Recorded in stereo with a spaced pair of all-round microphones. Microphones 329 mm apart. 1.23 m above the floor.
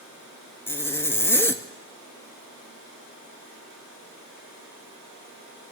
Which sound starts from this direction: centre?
A zipper, at 0.7 s.